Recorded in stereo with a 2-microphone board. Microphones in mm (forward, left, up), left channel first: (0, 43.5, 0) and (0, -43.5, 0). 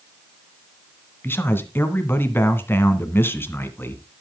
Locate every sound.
1.2 s a man speaking: 25° left (ahead or behind), 1.7 m